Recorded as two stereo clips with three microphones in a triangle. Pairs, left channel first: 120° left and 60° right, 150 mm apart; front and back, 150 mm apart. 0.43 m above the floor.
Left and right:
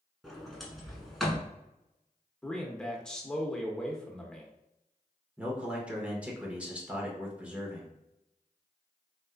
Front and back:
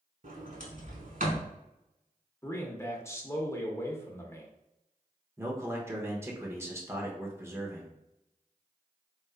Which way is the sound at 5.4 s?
130° right.